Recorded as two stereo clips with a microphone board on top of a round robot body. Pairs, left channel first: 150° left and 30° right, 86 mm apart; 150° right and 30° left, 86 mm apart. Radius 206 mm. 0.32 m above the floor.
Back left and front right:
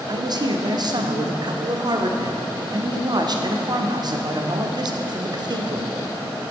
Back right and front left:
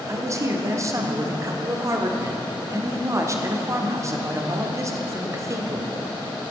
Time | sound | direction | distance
0.1 | a man speaking | 15° right | 1.2 m